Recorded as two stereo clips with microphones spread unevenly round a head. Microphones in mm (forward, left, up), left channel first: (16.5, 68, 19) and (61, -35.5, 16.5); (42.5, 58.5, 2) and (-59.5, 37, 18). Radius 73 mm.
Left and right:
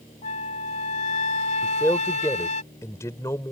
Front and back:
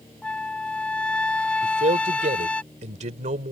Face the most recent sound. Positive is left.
turn(degrees=-175)